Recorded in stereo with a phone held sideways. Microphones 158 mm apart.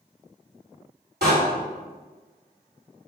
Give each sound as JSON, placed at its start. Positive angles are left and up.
{"t": 1.2, "sound": "a door slam", "side_deg": -85, "distance_m": 2.5}